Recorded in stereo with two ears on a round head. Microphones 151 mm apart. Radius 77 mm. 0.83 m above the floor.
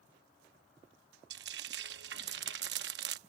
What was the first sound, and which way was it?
Frying, 65° right (ahead or behind).